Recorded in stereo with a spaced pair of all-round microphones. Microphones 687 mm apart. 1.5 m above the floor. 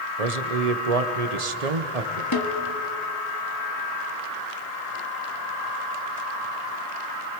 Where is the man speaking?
65° right (ahead or behind), 1.4 m.